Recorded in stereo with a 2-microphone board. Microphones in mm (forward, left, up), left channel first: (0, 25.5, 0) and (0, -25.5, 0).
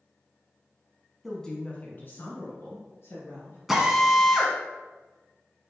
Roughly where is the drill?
Centre.